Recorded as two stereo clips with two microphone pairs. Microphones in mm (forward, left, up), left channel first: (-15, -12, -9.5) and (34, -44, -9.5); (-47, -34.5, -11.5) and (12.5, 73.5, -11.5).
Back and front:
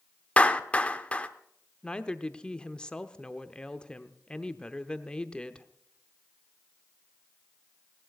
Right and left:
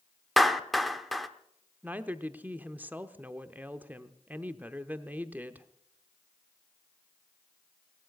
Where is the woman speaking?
110° left, 0.8 m.